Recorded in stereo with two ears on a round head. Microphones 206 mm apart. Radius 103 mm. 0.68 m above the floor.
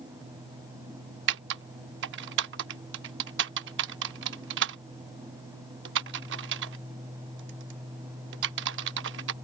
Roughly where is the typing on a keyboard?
Right.